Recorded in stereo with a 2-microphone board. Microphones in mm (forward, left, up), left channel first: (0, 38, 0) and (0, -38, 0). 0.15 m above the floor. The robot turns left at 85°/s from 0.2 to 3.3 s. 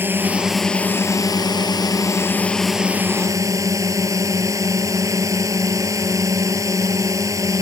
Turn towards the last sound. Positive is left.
turn(degrees=-50)